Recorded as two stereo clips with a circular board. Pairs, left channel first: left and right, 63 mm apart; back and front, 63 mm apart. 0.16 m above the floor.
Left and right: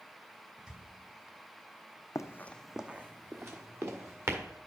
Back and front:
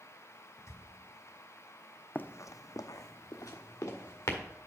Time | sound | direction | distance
0.6 | a squeak | 165° right | 1.1 m
2.1 | running footsteps | 120° left | 0.5 m